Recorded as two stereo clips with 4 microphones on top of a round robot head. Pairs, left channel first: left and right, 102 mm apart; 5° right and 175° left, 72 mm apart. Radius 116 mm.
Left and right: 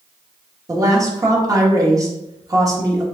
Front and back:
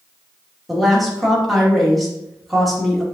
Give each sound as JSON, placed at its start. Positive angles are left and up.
{"t": 0.7, "sound": "a woman speaking", "azimuth_deg": -95, "distance_m": 1.3}